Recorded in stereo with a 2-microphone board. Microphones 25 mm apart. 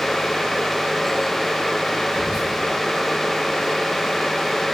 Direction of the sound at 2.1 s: 35° right (ahead or behind).